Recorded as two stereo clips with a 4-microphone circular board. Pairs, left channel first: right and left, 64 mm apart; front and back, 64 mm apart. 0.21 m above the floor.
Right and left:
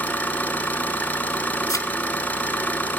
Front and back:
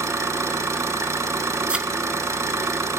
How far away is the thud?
About 0.5 m.